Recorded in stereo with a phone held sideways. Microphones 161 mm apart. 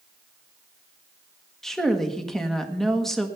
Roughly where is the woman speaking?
Centre.